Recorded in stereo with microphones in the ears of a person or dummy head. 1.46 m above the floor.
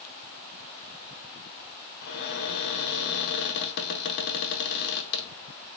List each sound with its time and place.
2.0 s a cupboard door: 60° left (ahead or behind), 0.9 m